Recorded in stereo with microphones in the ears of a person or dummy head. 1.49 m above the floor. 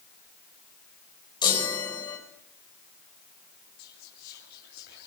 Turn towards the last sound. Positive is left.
turn(degrees=55)  # may be behind; listen again after turning